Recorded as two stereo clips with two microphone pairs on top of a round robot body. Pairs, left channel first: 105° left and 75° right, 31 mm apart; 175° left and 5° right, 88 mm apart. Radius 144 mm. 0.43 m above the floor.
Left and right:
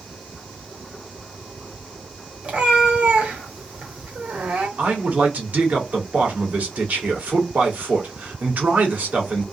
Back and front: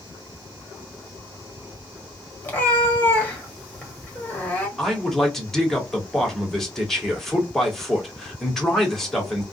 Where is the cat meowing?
115° right, 1.7 m.